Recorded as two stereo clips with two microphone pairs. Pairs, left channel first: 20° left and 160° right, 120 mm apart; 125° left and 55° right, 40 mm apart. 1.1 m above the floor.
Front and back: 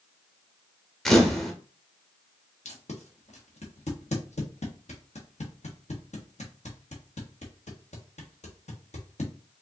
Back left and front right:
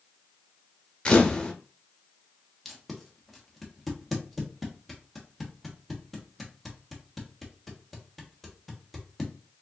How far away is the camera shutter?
About 0.8 m.